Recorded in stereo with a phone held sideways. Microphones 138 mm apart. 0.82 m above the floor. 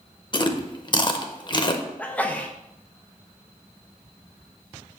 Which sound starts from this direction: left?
Chewing, at 0.3 s.